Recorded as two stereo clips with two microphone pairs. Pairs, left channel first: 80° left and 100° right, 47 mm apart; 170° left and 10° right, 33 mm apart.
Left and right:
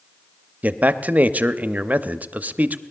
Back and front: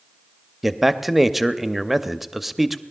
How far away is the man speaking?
About 0.6 m.